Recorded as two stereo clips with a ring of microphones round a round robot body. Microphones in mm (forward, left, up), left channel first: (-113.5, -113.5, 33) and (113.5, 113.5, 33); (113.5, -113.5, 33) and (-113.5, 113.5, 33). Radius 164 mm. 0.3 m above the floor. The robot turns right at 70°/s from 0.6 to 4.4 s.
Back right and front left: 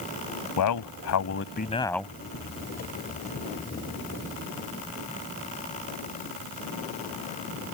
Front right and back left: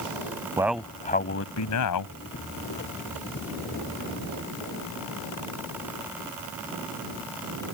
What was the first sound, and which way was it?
A man speaking, 145° right.